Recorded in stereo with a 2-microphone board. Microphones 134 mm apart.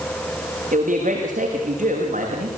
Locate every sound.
0.7 s a man speaking: 75° right (ahead or behind), 7.5 m